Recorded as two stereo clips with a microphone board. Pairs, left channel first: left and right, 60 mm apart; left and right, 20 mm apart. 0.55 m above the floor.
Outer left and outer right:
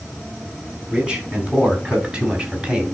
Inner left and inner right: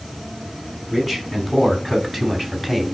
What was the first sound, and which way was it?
A man speaking, 15° right (ahead or behind).